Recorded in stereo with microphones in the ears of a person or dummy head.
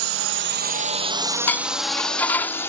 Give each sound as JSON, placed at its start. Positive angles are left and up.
{"t": 0.0, "sound": "a drone", "side_deg": -75}
{"t": 1.5, "sound": "dishes clattering", "side_deg": 10}